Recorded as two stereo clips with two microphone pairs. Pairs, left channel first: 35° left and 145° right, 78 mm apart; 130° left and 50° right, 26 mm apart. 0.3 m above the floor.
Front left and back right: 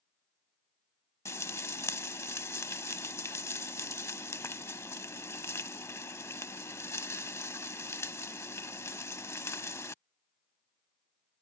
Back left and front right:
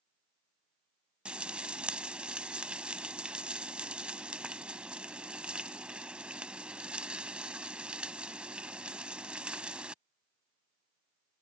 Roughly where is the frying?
Ahead.